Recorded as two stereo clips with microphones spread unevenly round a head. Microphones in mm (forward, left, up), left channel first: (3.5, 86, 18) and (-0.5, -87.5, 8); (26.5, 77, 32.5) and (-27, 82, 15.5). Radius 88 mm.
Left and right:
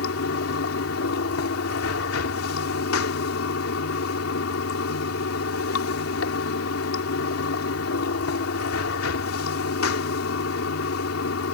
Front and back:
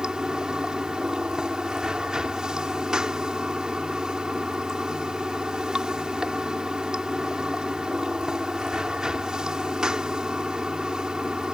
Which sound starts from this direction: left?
Running water, at 0.0 s.